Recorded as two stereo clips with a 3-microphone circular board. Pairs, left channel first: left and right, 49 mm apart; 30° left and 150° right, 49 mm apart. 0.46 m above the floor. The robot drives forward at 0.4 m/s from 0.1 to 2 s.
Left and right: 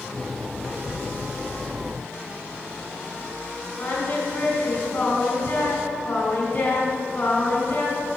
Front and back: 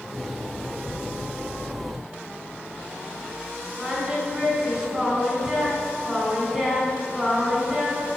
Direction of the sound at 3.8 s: 135° left.